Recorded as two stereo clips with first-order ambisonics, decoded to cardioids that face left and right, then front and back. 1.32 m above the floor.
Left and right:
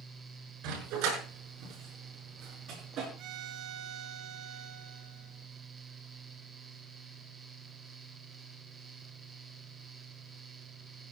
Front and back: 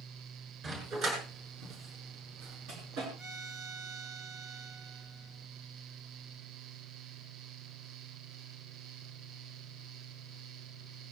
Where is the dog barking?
120° right, 7 m; by 3.1 s 145° right, 7 m.